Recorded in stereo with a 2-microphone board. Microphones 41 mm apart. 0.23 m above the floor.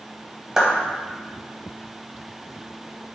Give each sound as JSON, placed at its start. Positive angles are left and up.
{"t": 0.6, "sound": "a clap", "side_deg": -15, "distance_m": 1.0}